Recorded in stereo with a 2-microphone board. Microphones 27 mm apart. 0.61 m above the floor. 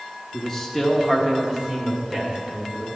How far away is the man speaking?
About 1.1 m.